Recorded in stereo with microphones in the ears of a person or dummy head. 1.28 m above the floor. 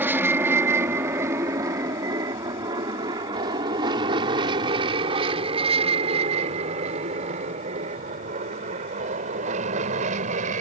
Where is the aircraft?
10° right (ahead or behind); by 10.6 s 40° right (ahead or behind).